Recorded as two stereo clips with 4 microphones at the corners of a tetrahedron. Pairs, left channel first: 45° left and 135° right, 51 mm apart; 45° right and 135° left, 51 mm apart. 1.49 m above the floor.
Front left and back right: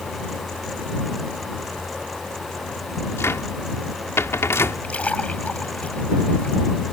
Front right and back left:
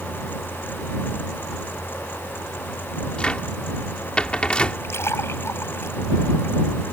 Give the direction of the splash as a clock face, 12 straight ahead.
1 o'clock.